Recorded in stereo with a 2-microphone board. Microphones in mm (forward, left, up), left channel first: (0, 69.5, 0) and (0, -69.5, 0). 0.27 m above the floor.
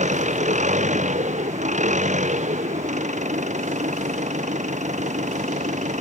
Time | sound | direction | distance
0.0 | an engine running | 60° right (ahead or behind) | ?